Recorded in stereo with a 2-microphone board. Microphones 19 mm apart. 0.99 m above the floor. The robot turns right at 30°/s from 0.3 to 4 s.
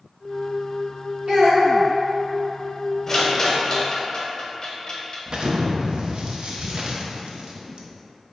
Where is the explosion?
50° right (ahead or behind), 0.5 m.